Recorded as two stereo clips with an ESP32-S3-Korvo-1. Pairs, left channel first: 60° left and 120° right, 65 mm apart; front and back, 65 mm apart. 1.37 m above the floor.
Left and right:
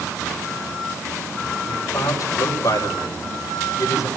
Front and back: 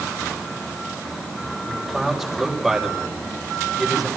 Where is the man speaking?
90° left, 6.5 m.